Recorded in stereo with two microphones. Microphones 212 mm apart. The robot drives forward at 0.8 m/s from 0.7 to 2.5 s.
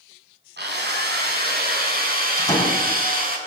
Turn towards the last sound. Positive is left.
turn(degrees=10)  # may be behind; listen again after turning